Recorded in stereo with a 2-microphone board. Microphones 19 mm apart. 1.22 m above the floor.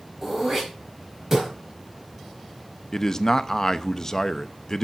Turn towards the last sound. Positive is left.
turn(degrees=30)  # may be behind; listen again after turning